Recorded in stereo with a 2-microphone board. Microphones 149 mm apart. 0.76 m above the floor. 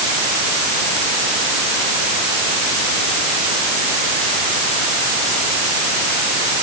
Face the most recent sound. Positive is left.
No sound to turn to.